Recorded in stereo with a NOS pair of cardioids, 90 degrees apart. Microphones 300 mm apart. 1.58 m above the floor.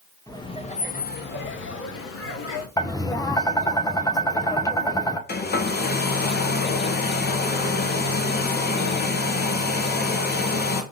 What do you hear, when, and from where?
0.3 s laughter: 10° left, 1.6 m; by 2.7 s 55° left, 3 m
2.8 s tapping: 10° left, 1.3 m
5.3 s a hair dryer: 35° left, 1.8 m